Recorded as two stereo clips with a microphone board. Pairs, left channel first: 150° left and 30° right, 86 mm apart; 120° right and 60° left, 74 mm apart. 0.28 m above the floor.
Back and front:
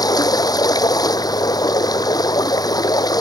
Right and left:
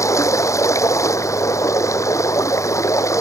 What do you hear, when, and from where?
0.0 s running water: 165° right